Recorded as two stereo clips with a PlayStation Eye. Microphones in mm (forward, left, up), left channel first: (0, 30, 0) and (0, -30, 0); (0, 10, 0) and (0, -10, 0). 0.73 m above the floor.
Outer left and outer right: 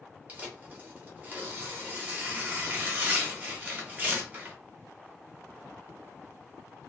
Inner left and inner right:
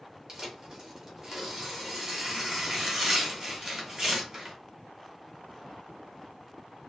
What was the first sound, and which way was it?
Tearing paper, 25° right (ahead or behind).